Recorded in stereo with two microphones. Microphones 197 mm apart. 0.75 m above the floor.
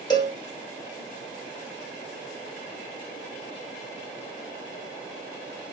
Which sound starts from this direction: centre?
A cowbell, at 0.1 s.